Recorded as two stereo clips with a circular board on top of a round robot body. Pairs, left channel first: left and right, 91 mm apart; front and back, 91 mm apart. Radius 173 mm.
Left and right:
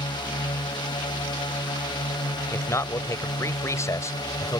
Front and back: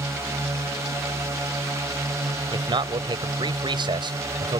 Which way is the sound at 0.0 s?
125° left.